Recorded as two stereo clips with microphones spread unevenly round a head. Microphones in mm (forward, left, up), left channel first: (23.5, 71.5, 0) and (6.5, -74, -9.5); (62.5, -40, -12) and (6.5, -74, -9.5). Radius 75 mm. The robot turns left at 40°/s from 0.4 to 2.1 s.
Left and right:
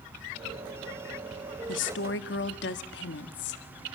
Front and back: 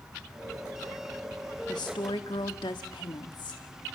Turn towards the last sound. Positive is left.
turn(degrees=80)